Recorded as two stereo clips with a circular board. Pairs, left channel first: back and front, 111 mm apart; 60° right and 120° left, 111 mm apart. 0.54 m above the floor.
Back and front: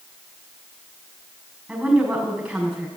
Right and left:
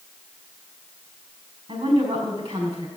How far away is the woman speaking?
About 5 m.